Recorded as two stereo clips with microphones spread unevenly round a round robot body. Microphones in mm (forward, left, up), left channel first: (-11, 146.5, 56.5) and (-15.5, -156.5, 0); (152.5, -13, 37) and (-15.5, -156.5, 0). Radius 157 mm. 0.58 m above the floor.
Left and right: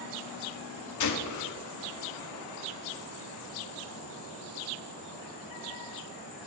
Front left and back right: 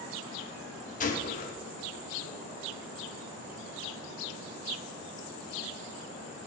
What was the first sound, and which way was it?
A gunshot, 95° left.